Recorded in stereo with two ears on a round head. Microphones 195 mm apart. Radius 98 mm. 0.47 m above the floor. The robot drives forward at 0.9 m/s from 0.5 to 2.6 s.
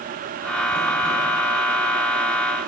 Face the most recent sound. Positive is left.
No sound to turn to.